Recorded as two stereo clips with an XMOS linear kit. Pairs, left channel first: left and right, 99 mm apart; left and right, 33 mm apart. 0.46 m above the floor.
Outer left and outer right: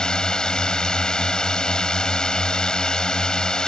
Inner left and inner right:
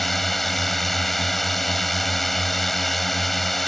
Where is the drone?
5° left (ahead or behind).